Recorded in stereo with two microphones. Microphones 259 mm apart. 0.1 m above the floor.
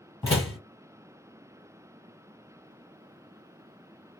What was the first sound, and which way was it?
A door slam, 15° left (ahead or behind).